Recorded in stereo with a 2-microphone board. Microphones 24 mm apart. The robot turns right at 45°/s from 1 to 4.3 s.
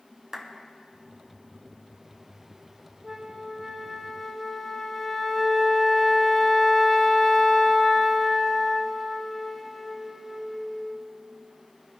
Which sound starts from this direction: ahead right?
A flute, at 3.0 s.